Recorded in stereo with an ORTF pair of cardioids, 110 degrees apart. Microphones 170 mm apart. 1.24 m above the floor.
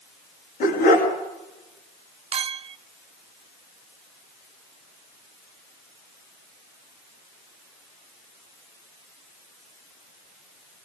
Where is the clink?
35° right, 0.7 m.